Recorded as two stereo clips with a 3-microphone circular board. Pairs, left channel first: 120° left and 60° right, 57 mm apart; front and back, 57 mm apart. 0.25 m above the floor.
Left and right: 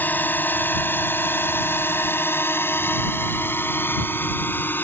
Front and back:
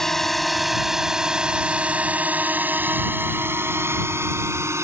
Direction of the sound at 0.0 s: 80° left.